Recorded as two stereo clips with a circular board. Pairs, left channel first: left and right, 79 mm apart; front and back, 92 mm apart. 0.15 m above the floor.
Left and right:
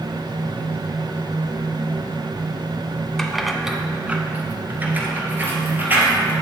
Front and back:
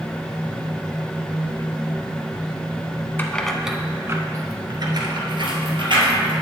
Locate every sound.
3.2 s keys jangling: 15° left, 0.8 m; by 6.3 s 155° right, 2.5 m